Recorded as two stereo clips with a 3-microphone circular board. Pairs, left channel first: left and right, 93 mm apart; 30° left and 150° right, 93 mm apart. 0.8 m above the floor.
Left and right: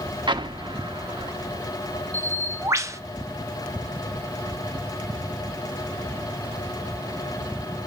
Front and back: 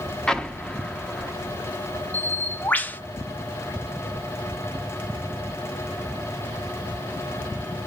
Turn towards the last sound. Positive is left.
turn(degrees=-40)